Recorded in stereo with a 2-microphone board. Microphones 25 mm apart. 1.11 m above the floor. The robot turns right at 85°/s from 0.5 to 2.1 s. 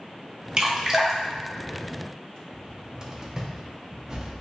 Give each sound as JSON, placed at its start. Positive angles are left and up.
{"t": 0.6, "sound": "dripping", "side_deg": -35, "distance_m": 0.9}
{"t": 2.5, "sound": "a cupboard door", "side_deg": -30, "distance_m": 0.7}